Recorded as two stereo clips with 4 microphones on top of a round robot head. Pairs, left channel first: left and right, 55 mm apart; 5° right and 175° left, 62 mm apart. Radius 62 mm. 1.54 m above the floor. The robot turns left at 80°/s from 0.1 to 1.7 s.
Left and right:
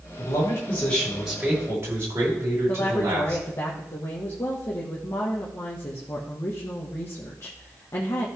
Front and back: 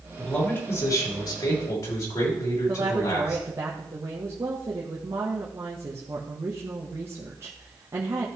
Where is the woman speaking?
130° left, 1.6 m.